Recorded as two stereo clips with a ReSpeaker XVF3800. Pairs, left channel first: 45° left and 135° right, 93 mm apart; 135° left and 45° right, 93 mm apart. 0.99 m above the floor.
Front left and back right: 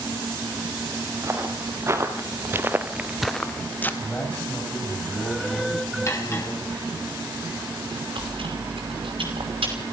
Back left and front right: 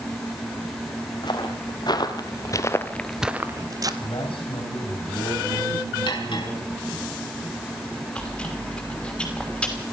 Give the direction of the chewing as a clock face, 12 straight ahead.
5 o'clock.